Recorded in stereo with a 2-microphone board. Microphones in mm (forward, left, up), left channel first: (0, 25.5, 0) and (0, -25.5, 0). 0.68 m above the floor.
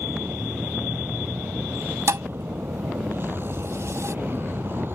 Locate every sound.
0.0 s a vehicle: 45° right (ahead or behind)
2.1 s a thud: 65° right (ahead or behind)